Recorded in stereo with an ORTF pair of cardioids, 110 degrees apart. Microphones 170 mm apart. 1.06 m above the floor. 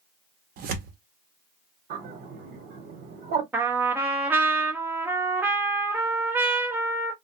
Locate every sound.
0.6 s tearing paper: 65° right, 0.7 m
1.9 s a bird: 70° right, 1.0 m
3.5 s a trumpet: 10° right, 0.7 m